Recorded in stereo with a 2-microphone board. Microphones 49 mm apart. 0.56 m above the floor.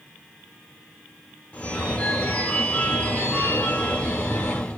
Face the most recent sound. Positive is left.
turn(degrees=25)  # may be behind; listen again after turning